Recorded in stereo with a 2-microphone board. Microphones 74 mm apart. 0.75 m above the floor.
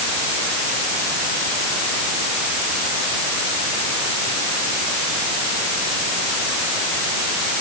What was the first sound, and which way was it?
Only background noise.